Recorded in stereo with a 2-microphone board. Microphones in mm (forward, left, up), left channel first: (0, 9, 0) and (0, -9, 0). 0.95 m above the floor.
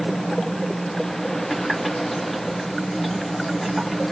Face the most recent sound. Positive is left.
turn(degrees=10)  # may be behind; listen again after turning